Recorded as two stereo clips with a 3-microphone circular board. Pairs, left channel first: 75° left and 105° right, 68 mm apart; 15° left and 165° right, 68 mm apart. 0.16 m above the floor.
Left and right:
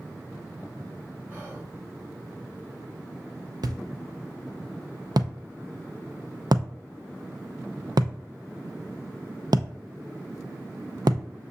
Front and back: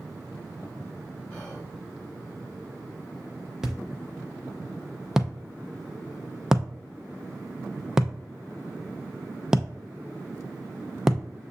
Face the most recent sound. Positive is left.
turn(degrees=-85)